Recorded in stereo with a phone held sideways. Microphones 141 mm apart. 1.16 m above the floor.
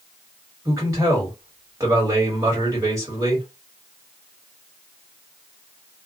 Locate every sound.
0.7 s a man speaking: 20° right (ahead or behind), 1.9 m